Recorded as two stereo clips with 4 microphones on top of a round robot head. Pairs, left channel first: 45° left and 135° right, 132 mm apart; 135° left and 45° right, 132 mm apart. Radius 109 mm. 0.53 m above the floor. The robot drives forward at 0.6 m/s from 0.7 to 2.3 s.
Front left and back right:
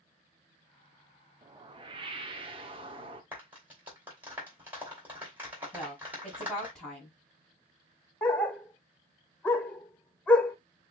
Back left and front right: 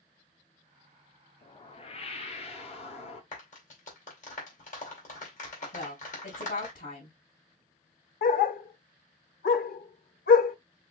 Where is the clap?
145° left, 3 m.